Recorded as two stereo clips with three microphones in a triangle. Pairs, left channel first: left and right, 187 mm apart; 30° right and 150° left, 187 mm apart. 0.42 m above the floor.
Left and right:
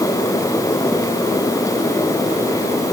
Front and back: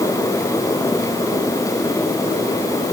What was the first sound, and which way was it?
Only background noise.